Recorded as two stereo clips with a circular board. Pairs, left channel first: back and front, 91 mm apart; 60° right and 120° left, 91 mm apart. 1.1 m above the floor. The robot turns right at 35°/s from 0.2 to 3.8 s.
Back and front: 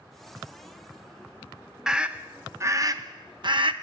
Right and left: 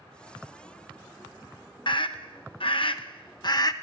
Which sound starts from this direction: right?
A scream, at 1.9 s.